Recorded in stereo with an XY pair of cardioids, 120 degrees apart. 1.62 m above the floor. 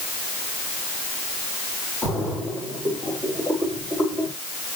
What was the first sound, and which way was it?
A splash, straight ahead.